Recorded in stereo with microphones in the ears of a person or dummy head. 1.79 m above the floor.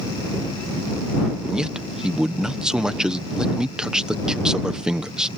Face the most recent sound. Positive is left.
turn(degrees=-5)  # may be behind; listen again after turning